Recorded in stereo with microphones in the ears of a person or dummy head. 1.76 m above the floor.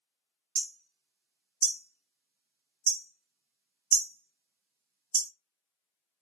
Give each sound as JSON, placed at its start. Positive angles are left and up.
{"t": 0.6, "sound": "hammering", "side_deg": -50, "distance_m": 0.6}